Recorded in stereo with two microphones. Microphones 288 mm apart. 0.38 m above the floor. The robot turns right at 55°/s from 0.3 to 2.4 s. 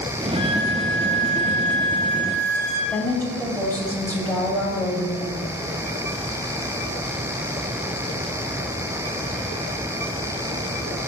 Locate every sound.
0.3 s a violin: 30° right, 1.6 m; by 2.8 s 80° left, 1.6 m
2.9 s a woman speaking: 5° left (ahead or behind), 1.9 m